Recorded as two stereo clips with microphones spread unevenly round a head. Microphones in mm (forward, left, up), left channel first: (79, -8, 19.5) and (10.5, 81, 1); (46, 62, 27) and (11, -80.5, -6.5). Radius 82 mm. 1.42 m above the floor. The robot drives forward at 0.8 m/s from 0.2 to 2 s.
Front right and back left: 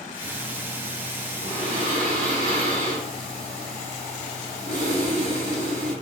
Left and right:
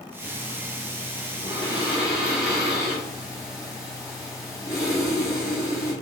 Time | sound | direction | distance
0.2 | breathing | 130° left | 3.5 m